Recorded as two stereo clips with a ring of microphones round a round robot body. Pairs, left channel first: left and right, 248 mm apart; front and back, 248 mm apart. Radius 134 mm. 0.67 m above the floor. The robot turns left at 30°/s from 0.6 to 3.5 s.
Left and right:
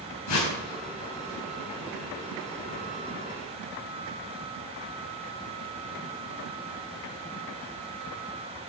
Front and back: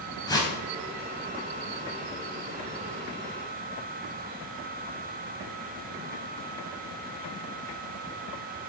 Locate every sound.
0.3 s a whoosh: 75° left, 3.5 m